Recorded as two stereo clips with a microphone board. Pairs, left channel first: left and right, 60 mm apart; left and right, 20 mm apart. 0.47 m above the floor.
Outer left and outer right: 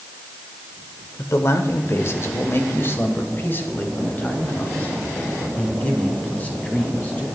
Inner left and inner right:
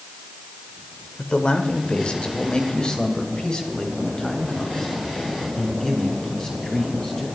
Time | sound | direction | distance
1.2 | a man speaking | 50° left (ahead or behind) | 1.5 m